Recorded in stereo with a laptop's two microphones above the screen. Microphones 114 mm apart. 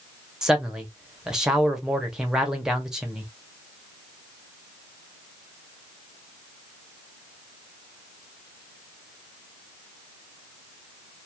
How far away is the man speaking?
About 0.7 m.